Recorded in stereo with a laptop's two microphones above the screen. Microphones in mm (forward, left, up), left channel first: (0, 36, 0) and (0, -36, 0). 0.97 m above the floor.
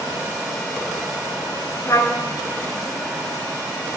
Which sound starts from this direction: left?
A trumpet, at 1.9 s.